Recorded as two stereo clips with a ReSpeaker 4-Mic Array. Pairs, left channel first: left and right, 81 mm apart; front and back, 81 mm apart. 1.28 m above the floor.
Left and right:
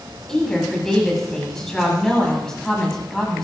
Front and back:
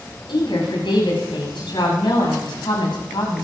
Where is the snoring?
I don't hear snoring.